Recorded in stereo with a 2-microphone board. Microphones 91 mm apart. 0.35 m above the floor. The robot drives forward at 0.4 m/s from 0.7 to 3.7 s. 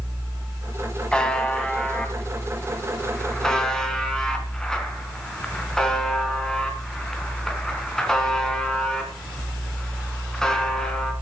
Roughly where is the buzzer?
Centre.